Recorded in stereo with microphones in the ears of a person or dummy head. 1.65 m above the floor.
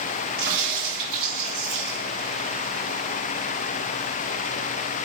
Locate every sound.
0.4 s a crack: 30° right (ahead or behind), 1.7 m